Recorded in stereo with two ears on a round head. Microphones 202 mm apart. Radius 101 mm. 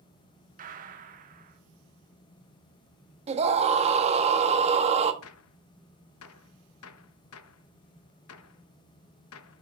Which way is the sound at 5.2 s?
70° left (ahead or behind).